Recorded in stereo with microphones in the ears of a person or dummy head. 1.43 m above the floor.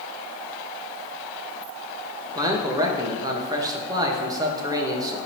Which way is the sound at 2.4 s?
25° right (ahead or behind).